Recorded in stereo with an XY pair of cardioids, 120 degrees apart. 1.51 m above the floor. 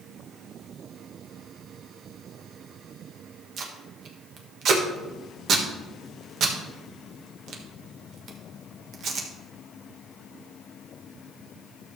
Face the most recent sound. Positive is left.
turn(degrees=-55)